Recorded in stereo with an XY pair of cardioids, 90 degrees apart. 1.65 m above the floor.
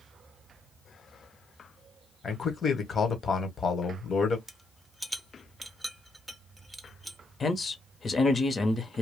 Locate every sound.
2.2 s a man speaking: 50° left, 1.3 m
4.5 s a rattle: 5° right, 0.8 m
7.4 s a man speaking: 40° left, 1.0 m